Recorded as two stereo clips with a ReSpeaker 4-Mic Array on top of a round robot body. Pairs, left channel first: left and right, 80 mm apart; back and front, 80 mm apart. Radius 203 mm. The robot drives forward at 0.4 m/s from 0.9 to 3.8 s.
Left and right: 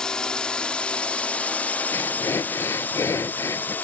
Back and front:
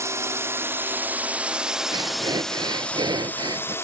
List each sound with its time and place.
0.0 s a drone: 15° left; by 3.9 s 145° left
1.9 s breathing: 30° left; by 3.8 s 35° left